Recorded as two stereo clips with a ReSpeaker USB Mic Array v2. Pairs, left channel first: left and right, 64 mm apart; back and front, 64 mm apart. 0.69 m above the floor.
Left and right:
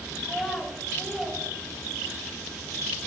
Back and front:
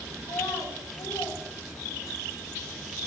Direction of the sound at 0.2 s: 175° right.